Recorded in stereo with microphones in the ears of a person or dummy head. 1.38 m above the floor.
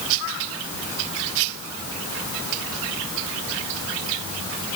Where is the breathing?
I don't hear breathing.